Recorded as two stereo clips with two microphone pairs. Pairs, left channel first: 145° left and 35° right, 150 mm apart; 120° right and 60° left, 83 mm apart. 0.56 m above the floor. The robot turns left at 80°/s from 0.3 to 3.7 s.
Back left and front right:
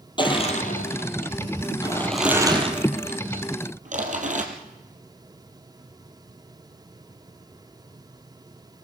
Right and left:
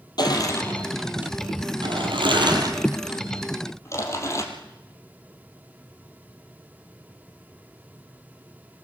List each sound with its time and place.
0.2 s crushing: 155° right, 4 m; by 4.4 s 70° right, 4 m